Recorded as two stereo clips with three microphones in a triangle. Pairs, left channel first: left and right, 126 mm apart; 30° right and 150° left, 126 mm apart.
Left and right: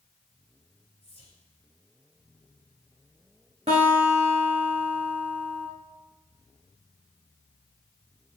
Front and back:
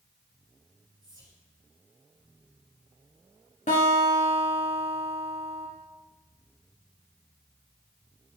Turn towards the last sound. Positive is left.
turn(degrees=-50)